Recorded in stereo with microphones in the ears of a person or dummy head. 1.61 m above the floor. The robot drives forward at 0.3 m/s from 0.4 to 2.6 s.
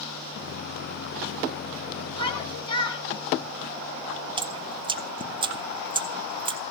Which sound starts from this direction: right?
Dripping, at 4.4 s.